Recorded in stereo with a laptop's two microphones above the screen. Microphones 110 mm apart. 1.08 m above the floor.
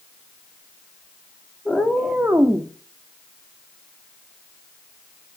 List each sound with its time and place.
1.6 s a cat meowing: 5° left (ahead or behind), 0.7 m; by 2.7 s 30° right (ahead or behind), 0.6 m